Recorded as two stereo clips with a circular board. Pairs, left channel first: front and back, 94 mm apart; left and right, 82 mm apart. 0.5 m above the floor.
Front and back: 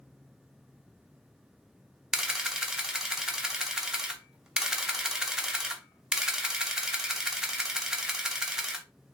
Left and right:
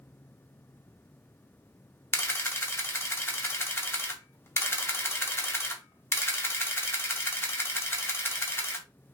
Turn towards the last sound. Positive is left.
turn(degrees=100)